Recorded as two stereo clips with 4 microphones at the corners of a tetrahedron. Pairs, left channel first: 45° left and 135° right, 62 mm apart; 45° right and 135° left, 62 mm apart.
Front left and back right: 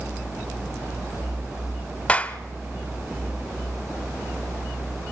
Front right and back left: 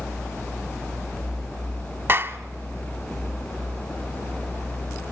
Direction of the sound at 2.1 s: 105° left.